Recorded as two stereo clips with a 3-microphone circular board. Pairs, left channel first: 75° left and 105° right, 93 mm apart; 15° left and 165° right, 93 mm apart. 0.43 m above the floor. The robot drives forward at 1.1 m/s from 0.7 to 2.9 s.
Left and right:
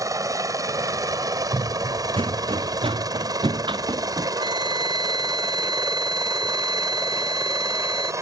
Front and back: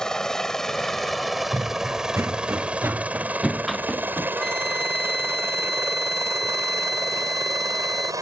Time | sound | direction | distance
0.0 | a helicopter | 65° right | ?
1.5 | running footsteps | 110° right | ?
4.4 | a flute | 75° right | ?